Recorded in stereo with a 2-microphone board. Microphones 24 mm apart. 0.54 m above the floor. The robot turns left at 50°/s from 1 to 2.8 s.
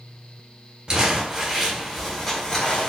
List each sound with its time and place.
0.9 s crumpling: 40° right (ahead or behind), 1.4 m; by 2.9 s 30° left (ahead or behind), 1.4 m